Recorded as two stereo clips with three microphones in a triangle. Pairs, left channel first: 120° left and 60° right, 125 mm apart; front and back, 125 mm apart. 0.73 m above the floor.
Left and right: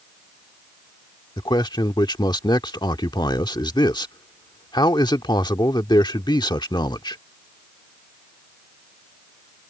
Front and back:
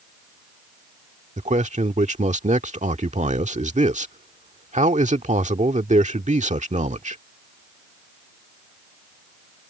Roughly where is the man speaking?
Behind.